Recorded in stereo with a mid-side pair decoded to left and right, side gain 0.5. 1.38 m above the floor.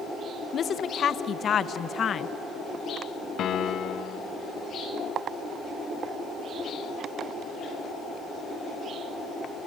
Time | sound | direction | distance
0.5 | a woman speaking | 45° left | 0.9 m
3.4 | a piano | 55° left | 1.2 m